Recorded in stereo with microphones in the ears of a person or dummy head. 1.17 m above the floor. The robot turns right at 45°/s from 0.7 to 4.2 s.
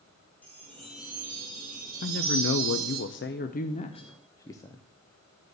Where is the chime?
175° left, 2.5 m; by 3.0 s 85° right, 2.5 m.